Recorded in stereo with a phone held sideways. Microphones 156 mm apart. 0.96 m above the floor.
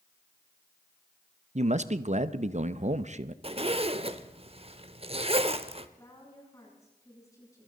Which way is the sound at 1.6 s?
45° right (ahead or behind).